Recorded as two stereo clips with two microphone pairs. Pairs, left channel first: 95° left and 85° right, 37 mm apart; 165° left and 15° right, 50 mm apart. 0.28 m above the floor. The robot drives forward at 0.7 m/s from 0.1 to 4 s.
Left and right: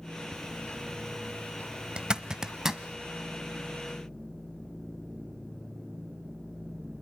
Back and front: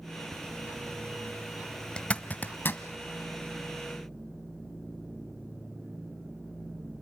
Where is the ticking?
35° left, 4.5 m; by 3.0 s 55° left, 3.5 m.